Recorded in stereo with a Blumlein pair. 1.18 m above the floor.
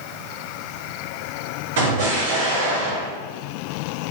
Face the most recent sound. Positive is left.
turn(degrees=-55)